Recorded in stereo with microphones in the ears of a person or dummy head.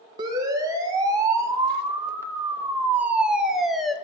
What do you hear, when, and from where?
0.2 s a siren: 20° right (ahead or behind), 2.5 m; by 4.0 s 5° left (ahead or behind), 1.0 m